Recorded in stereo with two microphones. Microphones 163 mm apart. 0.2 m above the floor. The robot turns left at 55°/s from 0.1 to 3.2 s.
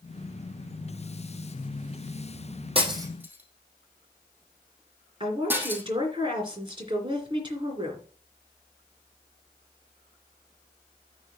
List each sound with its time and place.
2.8 s breaking glass: 35° right (ahead or behind), 3 m; by 5.8 s 10° right (ahead or behind), 3 m
5.2 s a woman speaking: 30° right (ahead or behind), 3 m